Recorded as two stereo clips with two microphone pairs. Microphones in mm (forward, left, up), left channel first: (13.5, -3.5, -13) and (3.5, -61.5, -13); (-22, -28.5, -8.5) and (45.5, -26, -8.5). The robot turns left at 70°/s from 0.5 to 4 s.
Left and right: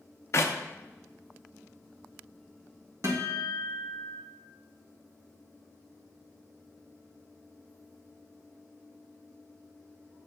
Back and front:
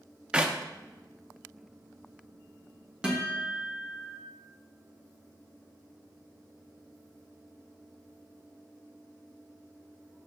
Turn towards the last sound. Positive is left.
turn(degrees=-140)